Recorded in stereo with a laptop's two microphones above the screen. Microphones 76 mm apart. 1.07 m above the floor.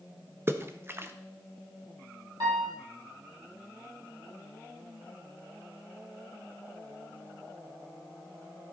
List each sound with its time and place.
0.5 s a splash: 30° right (ahead or behind), 0.5 m
2.4 s a piano: 60° right (ahead or behind), 2.5 m